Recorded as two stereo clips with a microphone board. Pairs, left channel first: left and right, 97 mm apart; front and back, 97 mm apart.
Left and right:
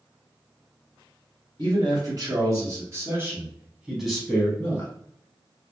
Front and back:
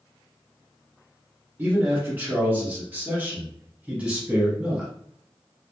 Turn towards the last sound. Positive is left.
turn(degrees=100)